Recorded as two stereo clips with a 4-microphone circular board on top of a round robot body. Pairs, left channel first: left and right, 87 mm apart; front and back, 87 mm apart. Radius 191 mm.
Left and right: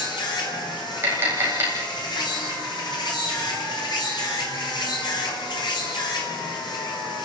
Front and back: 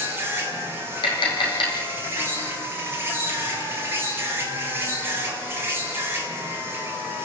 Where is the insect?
115° left, 4.5 m.